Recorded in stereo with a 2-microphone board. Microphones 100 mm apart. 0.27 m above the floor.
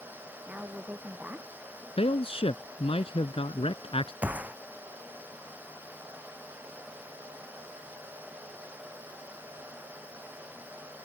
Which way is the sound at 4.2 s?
15° right (ahead or behind).